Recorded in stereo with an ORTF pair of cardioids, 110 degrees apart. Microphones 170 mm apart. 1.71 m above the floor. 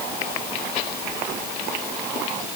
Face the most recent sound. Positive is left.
No sound to turn to.